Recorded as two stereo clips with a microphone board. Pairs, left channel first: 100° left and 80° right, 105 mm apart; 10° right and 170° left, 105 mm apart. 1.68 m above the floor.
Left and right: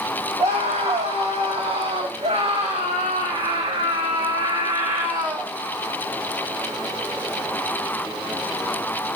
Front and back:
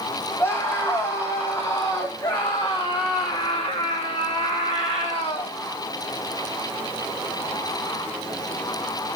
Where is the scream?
75° right, 3.5 m; by 5.5 s 20° right, 2 m.